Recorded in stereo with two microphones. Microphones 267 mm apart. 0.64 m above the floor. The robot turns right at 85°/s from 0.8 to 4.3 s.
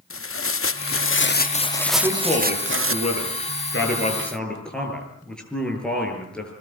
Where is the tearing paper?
85° left, 0.6 m; by 3.0 s 90° right, 0.6 m.